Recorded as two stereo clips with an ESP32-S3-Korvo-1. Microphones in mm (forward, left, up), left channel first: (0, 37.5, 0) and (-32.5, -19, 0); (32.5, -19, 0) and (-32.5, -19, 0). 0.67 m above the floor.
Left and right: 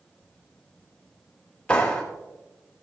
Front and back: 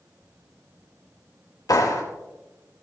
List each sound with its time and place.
1.7 s a clap: 5° right, 2.5 m